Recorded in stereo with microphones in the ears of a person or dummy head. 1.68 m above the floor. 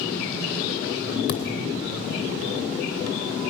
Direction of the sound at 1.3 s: 60° left (ahead or behind).